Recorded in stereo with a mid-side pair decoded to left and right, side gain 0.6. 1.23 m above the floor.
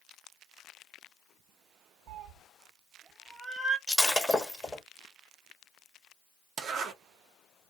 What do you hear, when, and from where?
2.1 s a cat meowing: 60° right, 1.3 m; by 3.8 s straight ahead, 1.0 m
3.9 s breaking glass: 15° left, 1.2 m
6.6 s a zipper: 55° right, 1.0 m